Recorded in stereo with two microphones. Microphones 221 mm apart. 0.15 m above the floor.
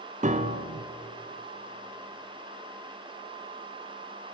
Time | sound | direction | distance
0.2 | a piano | 35° right (ahead or behind) | 1.2 m